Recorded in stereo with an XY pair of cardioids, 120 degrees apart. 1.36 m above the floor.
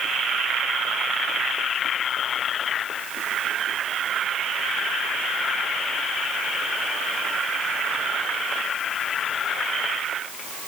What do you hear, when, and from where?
Only background noise.